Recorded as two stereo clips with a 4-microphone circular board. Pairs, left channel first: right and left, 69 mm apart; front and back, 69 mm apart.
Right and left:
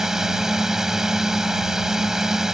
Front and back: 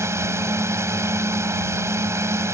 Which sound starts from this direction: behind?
A drone, at 0.0 s.